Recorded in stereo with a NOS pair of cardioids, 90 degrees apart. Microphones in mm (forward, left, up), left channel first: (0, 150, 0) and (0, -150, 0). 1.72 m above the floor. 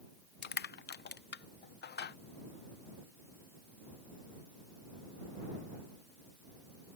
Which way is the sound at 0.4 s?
35° left.